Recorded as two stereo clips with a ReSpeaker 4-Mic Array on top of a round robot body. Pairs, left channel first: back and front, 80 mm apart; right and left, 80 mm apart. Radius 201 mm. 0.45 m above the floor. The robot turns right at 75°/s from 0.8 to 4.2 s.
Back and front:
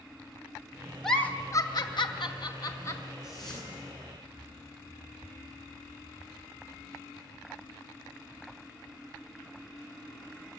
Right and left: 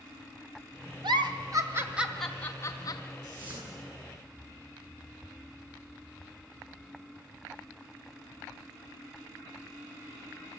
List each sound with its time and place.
1.0 s a giggle: 95° left, 2.0 m; by 3.1 s 110° right, 2.0 m
3.2 s a whoosh: 135° left, 9.5 m; by 3.8 s straight behind, 9.5 m